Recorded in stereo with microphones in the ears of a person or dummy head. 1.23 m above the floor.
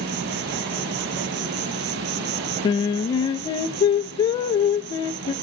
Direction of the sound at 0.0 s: 55° right (ahead or behind).